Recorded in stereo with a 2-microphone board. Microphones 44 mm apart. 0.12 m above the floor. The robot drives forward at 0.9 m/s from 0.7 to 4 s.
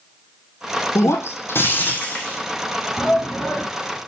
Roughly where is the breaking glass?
Left.